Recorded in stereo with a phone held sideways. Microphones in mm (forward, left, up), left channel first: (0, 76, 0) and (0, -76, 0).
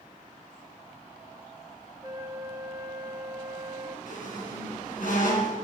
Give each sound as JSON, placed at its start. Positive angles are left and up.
{"t": 2.0, "sound": "a flute", "side_deg": -20, "distance_m": 0.8}
{"t": 4.1, "sound": "a squeak", "side_deg": 70, "distance_m": 3.5}